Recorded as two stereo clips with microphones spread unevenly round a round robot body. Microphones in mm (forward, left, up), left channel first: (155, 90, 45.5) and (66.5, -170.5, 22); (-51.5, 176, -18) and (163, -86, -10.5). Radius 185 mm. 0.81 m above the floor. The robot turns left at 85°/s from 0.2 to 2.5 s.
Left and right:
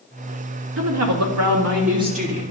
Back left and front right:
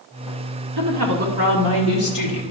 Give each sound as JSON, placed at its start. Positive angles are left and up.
{"t": 0.8, "sound": "a woman speaking", "azimuth_deg": -75, "distance_m": 1.6}